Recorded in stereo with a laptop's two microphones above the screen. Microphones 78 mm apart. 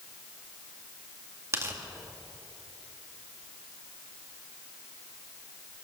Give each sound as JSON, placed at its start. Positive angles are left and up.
{"t": 1.5, "sound": "tearing paper", "side_deg": -35, "distance_m": 1.9}